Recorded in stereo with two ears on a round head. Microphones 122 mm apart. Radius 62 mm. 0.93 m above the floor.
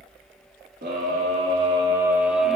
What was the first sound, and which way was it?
A scream, 65° right (ahead or behind).